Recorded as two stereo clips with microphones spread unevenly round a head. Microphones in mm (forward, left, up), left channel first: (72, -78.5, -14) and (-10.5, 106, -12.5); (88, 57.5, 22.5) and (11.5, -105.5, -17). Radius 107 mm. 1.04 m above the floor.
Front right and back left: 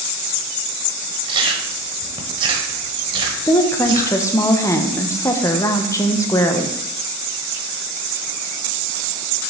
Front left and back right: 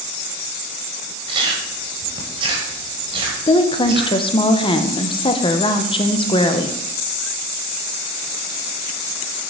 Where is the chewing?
175° left, 1.0 m.